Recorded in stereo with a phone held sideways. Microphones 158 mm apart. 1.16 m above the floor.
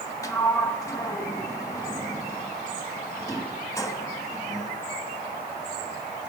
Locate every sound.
0.2 s a sliding door: 20° left (ahead or behind), 1.2 m